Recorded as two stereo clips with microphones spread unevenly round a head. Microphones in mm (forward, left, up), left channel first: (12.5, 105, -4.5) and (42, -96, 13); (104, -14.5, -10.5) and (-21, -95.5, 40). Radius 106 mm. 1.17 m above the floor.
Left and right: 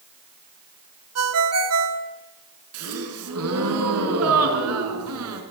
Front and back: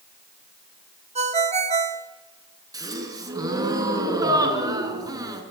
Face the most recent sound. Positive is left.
turn(degrees=-85)